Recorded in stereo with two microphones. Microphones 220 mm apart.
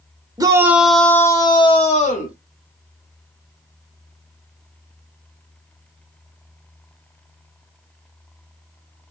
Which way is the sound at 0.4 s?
15° right (ahead or behind).